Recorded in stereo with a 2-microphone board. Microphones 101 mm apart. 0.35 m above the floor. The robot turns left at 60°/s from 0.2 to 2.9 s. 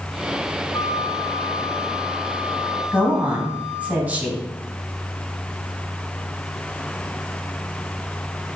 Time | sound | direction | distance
0.7 | a flute | 120° left | 0.7 m
2.9 | a woman speaking | 15° right (ahead or behind) | 3 m